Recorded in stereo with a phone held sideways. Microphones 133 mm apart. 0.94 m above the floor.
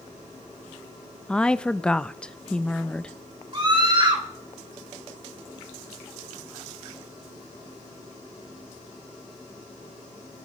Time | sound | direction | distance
1.3 | a woman speaking | 5° left (ahead or behind) | 0.5 m
3.5 | a scream | 35° right (ahead or behind) | 3 m